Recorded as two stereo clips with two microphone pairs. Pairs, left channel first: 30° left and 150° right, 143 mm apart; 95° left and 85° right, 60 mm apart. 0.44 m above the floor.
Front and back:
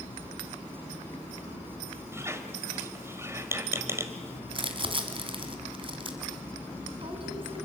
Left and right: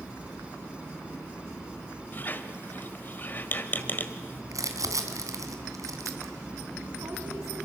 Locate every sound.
2.1 s a squeak: 140° left, 1.4 m
4.5 s crumpling: 100° right, 2.5 m